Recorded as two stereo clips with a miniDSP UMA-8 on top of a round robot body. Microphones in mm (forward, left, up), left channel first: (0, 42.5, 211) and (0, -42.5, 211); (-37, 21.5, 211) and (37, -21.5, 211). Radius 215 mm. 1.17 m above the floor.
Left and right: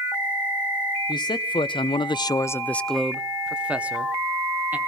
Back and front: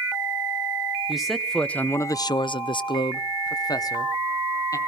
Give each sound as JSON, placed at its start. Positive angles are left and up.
{"t": 1.1, "sound": "a man speaking", "azimuth_deg": 55, "distance_m": 0.9}